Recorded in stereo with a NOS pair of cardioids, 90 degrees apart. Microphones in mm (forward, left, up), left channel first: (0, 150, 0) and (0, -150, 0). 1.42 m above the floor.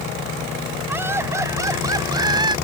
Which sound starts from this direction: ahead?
Laughter, at 0.9 s.